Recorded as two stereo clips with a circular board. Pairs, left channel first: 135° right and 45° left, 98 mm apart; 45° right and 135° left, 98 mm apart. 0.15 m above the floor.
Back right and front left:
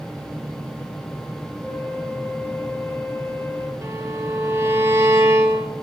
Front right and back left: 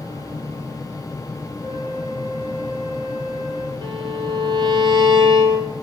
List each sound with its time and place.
1.6 s a flute: 175° right, 2.0 m
3.8 s a violin: 105° left, 1.3 m